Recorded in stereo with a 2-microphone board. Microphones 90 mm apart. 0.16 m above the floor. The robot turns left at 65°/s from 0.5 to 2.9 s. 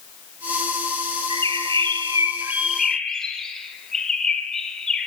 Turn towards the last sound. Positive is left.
turn(degrees=175)